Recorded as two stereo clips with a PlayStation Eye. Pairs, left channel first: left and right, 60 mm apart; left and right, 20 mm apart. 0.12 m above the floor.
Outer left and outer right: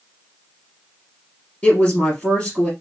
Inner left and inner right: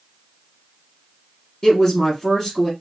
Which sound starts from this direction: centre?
A woman speaking, at 1.6 s.